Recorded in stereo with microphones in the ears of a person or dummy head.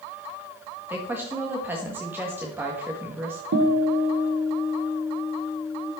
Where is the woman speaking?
10° right (ahead or behind), 1.8 m.